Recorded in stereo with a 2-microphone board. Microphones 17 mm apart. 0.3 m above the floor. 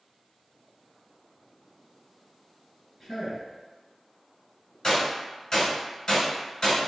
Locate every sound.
3.0 s a man speaking: centre (ahead or behind), 1.9 m
4.8 s a gunshot: 40° left (ahead or behind), 1.8 m